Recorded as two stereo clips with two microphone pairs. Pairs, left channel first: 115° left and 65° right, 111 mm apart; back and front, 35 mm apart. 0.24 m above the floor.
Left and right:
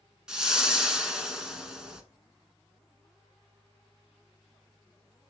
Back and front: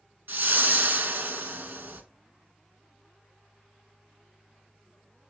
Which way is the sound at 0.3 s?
20° left.